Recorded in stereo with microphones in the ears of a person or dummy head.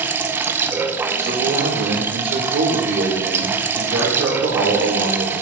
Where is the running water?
15° right (ahead or behind), 0.8 m.